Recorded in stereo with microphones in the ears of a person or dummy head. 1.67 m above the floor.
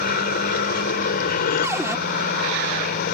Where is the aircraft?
50° left (ahead or behind).